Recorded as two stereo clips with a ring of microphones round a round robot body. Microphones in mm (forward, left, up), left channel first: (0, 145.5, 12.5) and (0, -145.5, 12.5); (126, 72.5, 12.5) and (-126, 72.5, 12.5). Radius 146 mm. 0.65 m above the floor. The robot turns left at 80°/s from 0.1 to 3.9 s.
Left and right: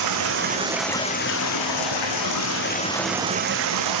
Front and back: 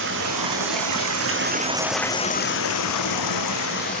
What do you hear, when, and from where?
0.0 s running water: 120° right, 3.5 m; by 4.0 s 65° right, 3.5 m